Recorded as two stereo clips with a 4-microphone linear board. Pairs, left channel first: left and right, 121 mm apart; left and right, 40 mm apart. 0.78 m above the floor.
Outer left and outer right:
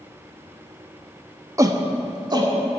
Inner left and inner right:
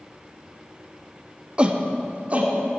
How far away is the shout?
About 0.9 m.